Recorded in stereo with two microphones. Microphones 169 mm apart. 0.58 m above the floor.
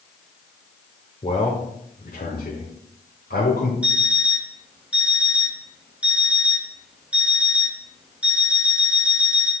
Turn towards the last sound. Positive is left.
turn(degrees=-5)  # may be behind; listen again after turning